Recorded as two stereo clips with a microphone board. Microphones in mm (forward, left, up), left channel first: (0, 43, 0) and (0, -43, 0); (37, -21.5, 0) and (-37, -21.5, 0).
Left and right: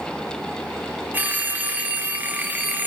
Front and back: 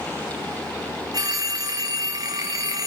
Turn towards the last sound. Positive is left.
turn(degrees=-155)